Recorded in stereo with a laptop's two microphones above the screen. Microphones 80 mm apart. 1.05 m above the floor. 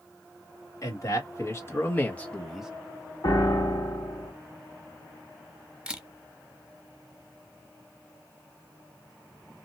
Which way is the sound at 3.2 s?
50° left (ahead or behind).